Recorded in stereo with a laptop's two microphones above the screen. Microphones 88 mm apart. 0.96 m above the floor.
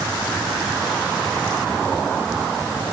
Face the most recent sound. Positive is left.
No sound to turn to.